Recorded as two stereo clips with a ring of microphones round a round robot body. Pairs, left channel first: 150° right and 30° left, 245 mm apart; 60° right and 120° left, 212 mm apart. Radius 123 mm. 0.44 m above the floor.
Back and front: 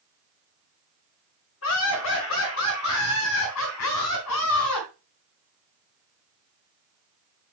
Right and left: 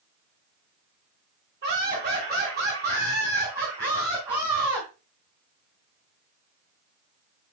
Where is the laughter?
175° left, 4.5 m; by 4.9 s 165° right, 3.5 m.